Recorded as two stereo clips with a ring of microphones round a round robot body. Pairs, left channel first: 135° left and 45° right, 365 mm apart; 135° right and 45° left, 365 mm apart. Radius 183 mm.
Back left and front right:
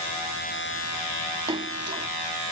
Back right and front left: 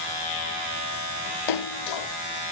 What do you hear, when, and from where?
1.5 s a splash: 120° right